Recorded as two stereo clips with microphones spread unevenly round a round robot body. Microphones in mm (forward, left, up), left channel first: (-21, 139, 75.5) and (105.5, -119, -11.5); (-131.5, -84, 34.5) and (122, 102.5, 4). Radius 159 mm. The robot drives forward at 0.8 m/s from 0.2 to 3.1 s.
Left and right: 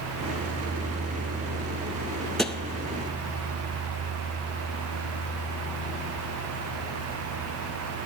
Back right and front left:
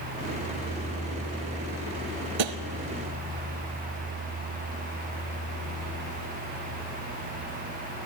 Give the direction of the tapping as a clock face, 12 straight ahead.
11 o'clock.